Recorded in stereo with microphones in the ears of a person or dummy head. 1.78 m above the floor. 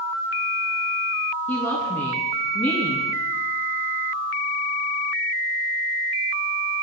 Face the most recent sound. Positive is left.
turn(degrees=15)  # may be behind; listen again after turning